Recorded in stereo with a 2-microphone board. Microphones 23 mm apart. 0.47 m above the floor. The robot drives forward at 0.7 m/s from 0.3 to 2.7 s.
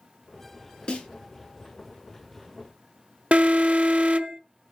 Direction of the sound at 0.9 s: 40° left (ahead or behind).